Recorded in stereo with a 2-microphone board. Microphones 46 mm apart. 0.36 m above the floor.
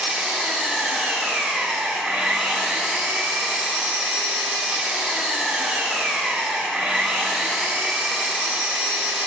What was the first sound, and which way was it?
An engine running, 10° right (ahead or behind).